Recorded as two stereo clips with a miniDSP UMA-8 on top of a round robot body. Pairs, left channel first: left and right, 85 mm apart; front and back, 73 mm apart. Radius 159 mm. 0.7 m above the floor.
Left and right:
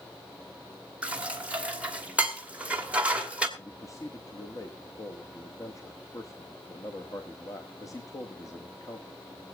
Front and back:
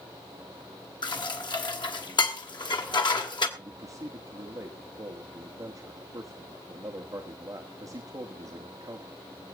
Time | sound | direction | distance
1.0 | dishes clattering | 15° right | 2 m
3.6 | a man speaking | 140° left | 1.6 m